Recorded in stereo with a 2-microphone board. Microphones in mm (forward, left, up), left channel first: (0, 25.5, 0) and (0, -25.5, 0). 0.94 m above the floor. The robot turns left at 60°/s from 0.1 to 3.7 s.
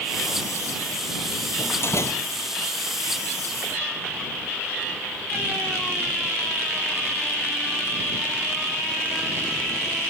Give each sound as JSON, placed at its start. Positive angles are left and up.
{"t": 1.6, "sound": "a door slam", "azimuth_deg": 145}